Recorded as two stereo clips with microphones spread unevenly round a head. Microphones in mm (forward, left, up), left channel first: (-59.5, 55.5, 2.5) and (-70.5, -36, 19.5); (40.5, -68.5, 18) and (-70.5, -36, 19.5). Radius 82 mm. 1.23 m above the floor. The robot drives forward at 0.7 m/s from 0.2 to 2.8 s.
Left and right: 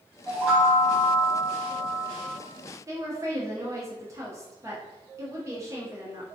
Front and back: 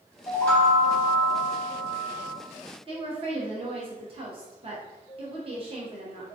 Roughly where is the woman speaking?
Behind.